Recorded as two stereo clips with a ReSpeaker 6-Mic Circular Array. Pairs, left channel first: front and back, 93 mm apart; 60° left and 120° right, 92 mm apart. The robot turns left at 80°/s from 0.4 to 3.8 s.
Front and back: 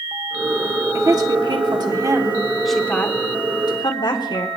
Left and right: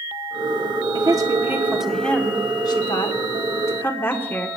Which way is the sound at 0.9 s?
135° right.